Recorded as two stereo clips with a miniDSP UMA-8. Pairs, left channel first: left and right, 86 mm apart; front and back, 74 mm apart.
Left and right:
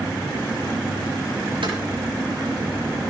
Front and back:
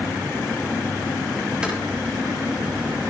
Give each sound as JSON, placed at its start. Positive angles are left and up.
{"t": 1.6, "sound": "footsteps", "azimuth_deg": -100, "distance_m": 7.0}